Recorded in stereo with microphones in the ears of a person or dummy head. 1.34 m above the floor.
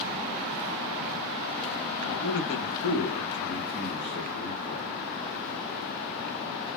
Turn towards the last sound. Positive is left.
turn(degrees=50)  # may be behind; listen again after turning